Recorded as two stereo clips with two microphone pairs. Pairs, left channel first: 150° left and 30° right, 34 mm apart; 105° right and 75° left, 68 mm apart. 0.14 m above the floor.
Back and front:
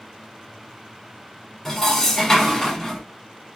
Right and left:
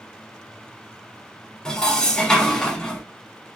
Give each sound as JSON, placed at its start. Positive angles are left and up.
{"t": 1.6, "sound": "dishes clattering", "azimuth_deg": -160, "distance_m": 0.8}